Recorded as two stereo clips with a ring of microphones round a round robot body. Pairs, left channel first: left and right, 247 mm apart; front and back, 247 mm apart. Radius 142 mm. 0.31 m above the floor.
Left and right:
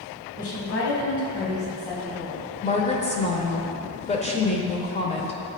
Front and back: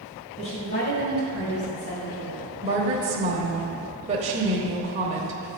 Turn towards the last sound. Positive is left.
turn(degrees=135)